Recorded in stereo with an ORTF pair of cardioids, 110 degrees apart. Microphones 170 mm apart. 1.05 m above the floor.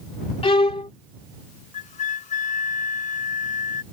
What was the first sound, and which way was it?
A violin, 30° left.